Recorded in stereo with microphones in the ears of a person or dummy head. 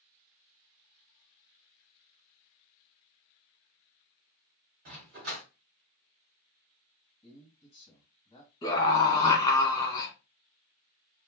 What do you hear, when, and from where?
4.8 s a dog barking: 40° right (ahead or behind), 1.2 m
7.2 s a man speaking: 25° left (ahead or behind), 1.4 m
8.6 s a scream: 25° left (ahead or behind), 1.5 m